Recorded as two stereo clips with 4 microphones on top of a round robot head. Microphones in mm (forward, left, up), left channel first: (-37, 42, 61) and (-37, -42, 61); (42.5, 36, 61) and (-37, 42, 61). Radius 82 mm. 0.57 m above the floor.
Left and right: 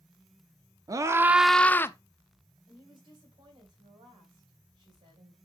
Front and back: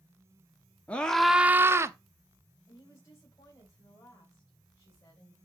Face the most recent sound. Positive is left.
turn(degrees=-60)